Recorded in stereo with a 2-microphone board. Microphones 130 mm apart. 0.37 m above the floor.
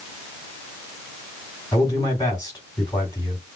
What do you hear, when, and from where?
1.7 s a man speaking: 30° left (ahead or behind), 2.5 m